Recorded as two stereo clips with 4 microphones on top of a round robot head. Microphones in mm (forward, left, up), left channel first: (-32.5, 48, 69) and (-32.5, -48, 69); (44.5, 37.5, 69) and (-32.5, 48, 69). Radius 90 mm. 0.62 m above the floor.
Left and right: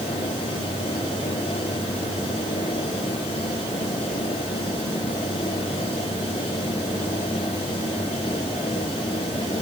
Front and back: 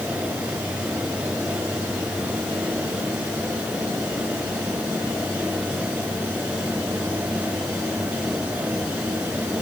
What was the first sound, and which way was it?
Only background noise.